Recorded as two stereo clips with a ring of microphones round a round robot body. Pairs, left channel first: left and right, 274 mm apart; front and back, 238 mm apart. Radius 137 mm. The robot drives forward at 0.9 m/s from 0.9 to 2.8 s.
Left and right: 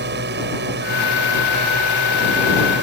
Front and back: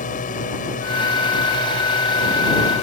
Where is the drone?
50° right; by 2.8 s 55° right.